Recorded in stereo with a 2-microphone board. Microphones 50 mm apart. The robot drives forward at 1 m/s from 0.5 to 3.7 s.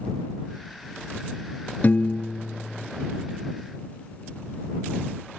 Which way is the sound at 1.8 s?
40° left (ahead or behind).